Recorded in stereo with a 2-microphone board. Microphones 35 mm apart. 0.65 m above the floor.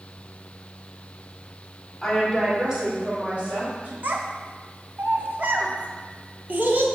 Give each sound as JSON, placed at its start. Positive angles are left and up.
{"t": 2.0, "sound": "a woman speaking", "side_deg": 15, "distance_m": 1.6}
{"t": 4.0, "sound": "a child speaking", "side_deg": -60, "distance_m": 0.7}